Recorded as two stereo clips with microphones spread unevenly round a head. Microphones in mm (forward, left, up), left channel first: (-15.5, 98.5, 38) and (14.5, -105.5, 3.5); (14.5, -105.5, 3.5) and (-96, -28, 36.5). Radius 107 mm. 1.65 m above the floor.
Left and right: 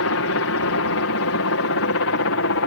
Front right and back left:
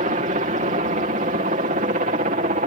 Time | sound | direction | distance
0.0 | a helicopter | 100° left | ?